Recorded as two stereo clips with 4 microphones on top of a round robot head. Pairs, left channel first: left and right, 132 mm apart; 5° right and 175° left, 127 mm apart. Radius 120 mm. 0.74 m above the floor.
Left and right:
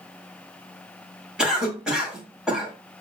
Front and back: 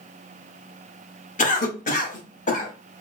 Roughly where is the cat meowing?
I don't hear a cat meowing.